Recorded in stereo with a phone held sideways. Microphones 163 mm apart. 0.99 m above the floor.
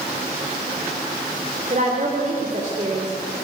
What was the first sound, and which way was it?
A woman speaking, 50° right (ahead or behind).